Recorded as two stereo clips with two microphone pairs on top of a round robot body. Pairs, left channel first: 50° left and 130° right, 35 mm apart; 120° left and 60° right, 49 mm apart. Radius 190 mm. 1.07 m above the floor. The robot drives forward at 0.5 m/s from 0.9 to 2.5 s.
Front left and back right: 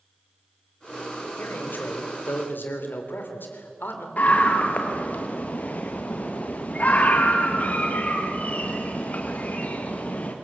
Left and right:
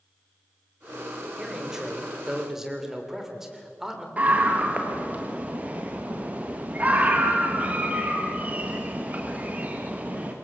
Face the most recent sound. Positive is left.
turn(degrees=0)